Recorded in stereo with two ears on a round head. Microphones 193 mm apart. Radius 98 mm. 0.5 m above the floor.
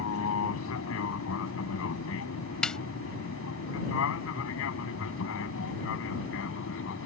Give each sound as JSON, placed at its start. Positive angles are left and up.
{"t": 0.0, "sound": "an aircraft", "side_deg": 70}
{"t": 2.6, "sound": "a snare drum", "side_deg": 5}